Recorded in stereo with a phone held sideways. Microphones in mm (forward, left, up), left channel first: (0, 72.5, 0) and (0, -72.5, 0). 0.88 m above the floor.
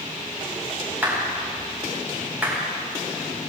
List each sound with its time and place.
1.0 s a clap: 15° right (ahead or behind), 5.5 m